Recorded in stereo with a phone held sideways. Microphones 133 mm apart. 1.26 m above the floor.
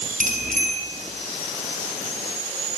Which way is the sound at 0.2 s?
75° right (ahead or behind).